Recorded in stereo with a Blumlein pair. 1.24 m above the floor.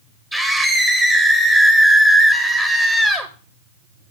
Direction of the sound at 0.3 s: 5° right.